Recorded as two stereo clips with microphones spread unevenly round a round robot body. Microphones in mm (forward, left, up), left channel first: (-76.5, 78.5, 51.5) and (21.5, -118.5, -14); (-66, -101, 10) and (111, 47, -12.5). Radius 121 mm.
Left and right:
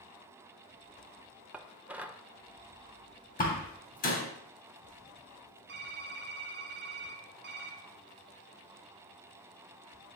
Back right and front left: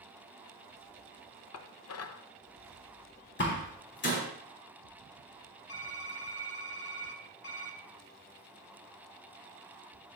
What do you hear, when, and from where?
1.5 s dishes clattering: 135° right, 0.6 m
3.4 s a door slam: 170° left, 2.5 m
5.7 s typing on a keyboard: 100° right, 1.2 m